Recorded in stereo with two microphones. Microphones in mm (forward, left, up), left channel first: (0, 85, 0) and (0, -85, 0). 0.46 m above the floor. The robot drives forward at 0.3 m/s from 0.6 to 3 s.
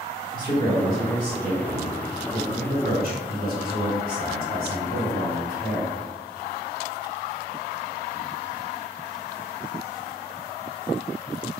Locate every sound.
0.3 s a man speaking: 55° right (ahead or behind), 2.0 m